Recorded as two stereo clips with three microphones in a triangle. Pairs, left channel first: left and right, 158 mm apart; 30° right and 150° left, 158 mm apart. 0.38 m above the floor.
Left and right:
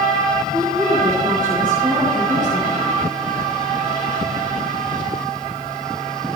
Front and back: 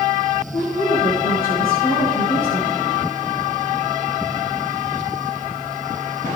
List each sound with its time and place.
0.5 s a woman speaking: 25° right, 6.5 m